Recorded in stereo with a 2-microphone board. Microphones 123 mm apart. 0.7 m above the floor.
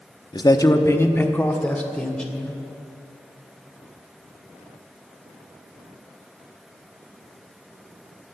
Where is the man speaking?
35° left (ahead or behind), 0.7 m; by 2.6 s 5° left (ahead or behind), 2.5 m.